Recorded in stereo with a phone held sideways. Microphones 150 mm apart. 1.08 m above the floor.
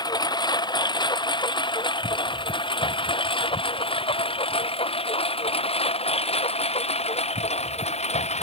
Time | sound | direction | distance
0.0 | a lawn mower | 30° left (ahead or behind) | ?